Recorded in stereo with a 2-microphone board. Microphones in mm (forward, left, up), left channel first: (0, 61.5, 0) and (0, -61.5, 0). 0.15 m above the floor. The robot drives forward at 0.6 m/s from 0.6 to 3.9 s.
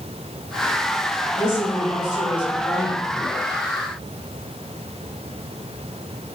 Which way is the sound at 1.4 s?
40° left (ahead or behind).